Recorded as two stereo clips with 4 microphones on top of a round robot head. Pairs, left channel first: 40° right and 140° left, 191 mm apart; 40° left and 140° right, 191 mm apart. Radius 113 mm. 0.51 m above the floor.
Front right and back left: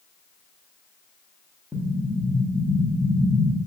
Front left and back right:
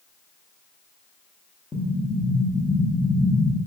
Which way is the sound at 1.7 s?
40° left.